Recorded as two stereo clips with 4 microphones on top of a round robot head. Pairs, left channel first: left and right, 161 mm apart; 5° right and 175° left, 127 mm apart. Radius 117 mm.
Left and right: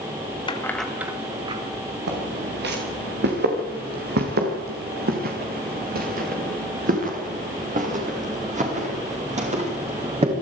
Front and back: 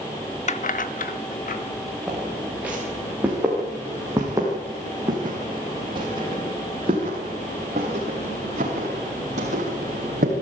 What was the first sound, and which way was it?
Keys jangling, 25° left.